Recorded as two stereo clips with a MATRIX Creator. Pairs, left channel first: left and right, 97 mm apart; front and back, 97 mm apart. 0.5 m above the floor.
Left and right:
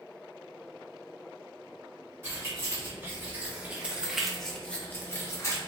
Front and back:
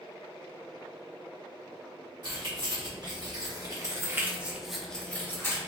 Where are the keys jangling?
150° right, 1.4 m; by 5.6 s 50° left, 0.8 m.